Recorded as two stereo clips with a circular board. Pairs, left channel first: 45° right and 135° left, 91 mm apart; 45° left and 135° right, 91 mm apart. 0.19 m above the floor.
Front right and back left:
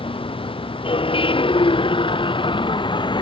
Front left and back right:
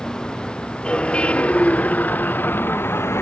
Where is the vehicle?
35° right; by 3.2 s 15° right.